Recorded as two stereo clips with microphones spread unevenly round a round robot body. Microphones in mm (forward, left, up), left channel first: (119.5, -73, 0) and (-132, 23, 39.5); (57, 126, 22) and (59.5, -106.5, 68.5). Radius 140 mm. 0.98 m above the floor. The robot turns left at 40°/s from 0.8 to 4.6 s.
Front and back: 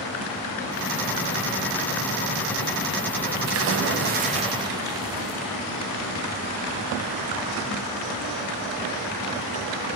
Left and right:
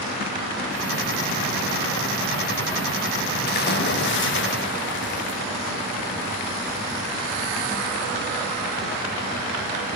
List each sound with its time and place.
3.5 s a splash: 125° left, 1.4 m; by 5.4 s 80° left, 1.4 m